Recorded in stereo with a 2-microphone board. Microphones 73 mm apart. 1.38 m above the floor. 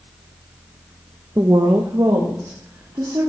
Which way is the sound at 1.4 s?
40° right (ahead or behind).